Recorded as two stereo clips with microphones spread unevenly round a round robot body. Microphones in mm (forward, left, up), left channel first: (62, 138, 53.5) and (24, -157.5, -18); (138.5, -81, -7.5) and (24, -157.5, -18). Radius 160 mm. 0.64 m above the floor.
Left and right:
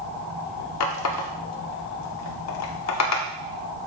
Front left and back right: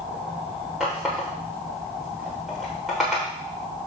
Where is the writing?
I don't hear writing.